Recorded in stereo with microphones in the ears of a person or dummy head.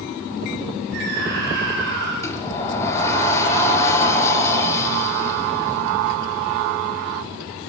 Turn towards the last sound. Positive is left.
turn(degrees=15)  # may be behind; listen again after turning